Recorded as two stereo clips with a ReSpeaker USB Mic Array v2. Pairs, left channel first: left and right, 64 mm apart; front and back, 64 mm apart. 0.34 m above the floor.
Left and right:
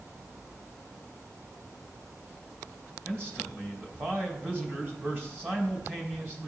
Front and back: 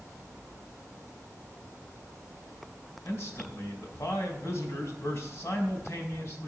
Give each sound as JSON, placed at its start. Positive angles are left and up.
{"t": 3.0, "sound": "a man speaking", "azimuth_deg": -40, "distance_m": 2.0}